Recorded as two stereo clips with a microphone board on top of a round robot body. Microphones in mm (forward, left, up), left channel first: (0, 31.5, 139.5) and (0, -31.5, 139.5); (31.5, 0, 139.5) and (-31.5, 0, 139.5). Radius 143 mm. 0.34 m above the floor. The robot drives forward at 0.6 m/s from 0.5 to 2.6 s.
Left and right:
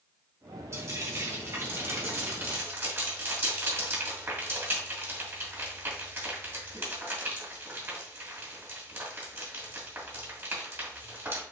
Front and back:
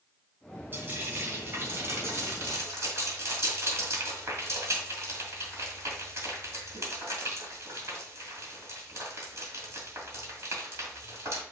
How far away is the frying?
About 3 m.